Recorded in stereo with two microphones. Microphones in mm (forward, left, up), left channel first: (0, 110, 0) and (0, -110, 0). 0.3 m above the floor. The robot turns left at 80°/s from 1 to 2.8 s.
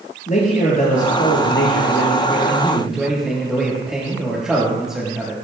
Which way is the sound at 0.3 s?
140° left.